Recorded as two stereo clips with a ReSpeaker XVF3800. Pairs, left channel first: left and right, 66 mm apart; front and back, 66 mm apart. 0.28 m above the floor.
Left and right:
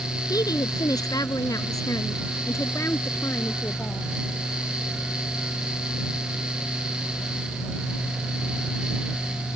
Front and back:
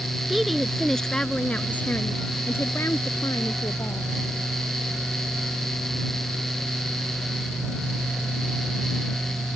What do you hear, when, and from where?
0.3 s a woman speaking: 95° left; by 4.1 s 30° left